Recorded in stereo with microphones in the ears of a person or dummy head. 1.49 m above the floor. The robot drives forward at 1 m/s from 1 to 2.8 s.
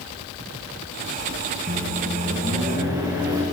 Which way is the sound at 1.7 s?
35° right (ahead or behind).